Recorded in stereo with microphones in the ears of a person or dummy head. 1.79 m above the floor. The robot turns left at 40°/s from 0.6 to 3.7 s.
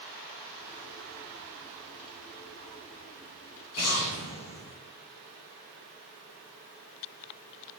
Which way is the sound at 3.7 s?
80° left.